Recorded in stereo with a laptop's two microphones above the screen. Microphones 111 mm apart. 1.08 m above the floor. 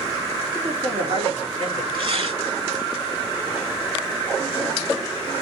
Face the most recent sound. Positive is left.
turn(degrees=-55)  # may be behind; listen again after turning